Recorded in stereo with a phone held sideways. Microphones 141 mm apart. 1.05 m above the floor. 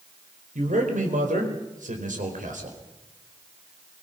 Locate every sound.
0.6 s a man speaking: 70° right (ahead or behind), 4.5 m